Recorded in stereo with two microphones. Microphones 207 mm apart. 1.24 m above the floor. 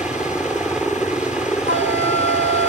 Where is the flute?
75° right (ahead or behind).